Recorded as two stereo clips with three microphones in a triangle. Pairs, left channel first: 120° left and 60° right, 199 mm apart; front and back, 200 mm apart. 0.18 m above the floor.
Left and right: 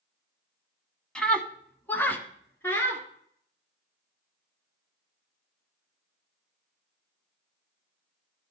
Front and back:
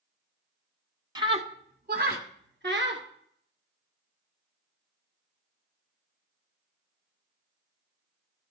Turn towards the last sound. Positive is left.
turn(degrees=-160)